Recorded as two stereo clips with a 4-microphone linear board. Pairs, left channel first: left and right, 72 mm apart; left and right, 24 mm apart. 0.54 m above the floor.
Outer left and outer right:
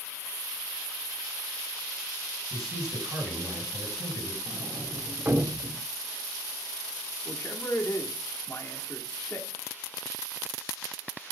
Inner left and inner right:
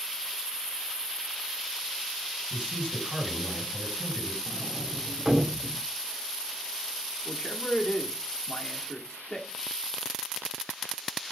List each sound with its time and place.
2.5 s a man speaking: 55° right (ahead or behind), 5.5 m
4.5 s a sliding door: 35° right (ahead or behind), 0.8 m
7.2 s a man speaking: 35° left (ahead or behind), 1.4 m